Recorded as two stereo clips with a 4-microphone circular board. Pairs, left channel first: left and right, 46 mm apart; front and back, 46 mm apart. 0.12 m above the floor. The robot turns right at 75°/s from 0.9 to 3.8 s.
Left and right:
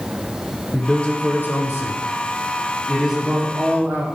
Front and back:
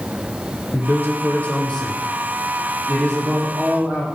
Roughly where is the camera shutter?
No camera shutter in this recording.